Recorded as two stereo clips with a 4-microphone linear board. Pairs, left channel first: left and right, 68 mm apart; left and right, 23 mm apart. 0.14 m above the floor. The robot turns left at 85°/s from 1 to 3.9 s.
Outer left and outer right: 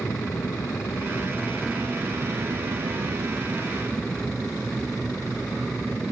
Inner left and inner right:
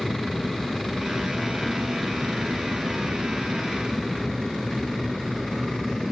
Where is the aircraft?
60° left; by 6.1 s 175° left.